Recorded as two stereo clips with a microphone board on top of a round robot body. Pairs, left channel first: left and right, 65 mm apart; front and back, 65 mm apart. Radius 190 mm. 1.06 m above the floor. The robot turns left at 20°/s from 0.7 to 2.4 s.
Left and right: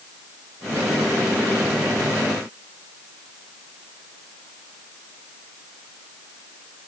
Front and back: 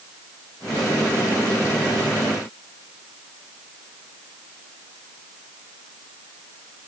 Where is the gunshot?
I don't hear a gunshot.